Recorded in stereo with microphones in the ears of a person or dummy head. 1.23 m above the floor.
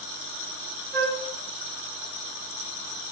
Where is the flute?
50° right (ahead or behind), 0.9 m.